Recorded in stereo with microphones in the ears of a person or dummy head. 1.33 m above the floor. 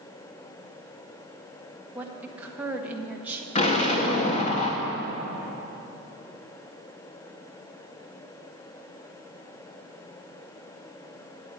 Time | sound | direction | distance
1.9 | a woman speaking | 10° right (ahead or behind) | 1.7 m
3.5 | an explosion | 40° left (ahead or behind) | 2 m